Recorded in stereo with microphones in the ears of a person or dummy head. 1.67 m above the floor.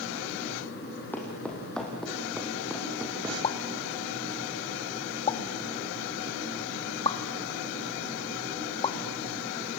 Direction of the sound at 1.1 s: 5° left (ahead or behind).